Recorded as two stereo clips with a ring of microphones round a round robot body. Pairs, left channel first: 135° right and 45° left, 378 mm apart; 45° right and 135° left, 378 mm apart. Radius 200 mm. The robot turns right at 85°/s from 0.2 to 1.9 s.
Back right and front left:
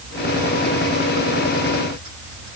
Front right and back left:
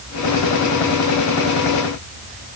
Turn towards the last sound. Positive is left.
No sound to turn to.